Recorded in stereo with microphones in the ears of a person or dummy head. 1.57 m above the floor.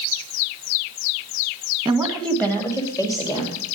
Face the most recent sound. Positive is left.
turn(degrees=25)  # may be behind; listen again after turning